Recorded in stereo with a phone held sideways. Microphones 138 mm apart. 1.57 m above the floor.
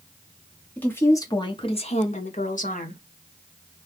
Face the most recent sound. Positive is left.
turn(degrees=70)  # may be behind; listen again after turning